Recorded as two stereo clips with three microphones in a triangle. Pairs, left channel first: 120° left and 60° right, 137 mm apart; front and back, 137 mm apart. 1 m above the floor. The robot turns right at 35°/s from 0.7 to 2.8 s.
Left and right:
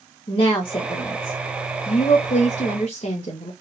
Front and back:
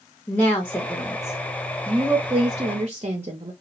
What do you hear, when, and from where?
0.3 s a woman speaking: 75° left, 0.6 m; by 3.5 s 150° left, 0.6 m